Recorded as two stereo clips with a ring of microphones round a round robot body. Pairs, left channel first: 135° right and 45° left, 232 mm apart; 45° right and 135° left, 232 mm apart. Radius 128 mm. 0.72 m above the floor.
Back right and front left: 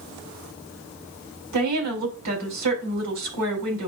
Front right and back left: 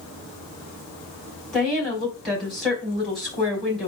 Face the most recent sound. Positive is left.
turn(degrees=45)